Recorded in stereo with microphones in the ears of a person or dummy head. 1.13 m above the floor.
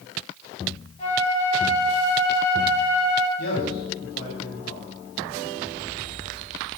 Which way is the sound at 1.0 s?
30° left (ahead or behind).